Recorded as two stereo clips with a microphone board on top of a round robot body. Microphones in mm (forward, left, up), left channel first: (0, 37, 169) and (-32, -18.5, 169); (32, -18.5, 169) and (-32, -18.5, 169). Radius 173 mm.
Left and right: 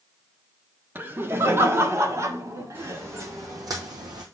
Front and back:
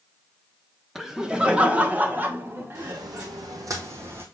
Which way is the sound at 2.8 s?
175° right.